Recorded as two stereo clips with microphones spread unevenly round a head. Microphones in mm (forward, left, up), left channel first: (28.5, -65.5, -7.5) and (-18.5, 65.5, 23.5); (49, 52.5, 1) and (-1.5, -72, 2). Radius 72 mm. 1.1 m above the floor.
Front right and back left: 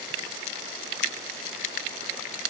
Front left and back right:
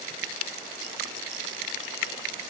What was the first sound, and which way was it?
Only background noise.